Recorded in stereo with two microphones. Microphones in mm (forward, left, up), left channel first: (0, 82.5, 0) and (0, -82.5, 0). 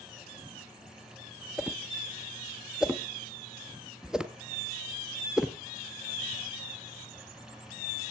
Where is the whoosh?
5° right (ahead or behind), 0.8 m.